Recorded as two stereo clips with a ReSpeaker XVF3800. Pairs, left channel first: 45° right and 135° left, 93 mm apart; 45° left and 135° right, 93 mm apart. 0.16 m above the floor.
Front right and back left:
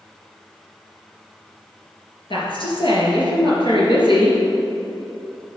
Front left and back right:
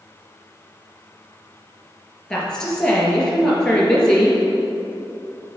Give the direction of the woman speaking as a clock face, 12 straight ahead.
1 o'clock.